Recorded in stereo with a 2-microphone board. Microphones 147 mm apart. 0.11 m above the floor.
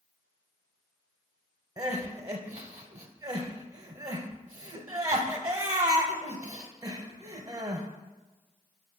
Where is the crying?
25° right (ahead or behind), 0.6 m.